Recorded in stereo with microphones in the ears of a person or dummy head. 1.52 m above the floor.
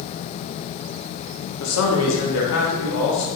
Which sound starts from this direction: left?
A man speaking, at 1.6 s.